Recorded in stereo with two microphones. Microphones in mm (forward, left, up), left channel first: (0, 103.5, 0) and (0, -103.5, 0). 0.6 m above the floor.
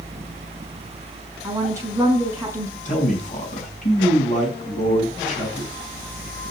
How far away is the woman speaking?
About 5 m.